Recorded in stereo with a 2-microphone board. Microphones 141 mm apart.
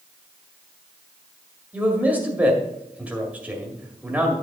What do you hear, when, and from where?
1.7 s a man speaking: 10° right (ahead or behind), 2 m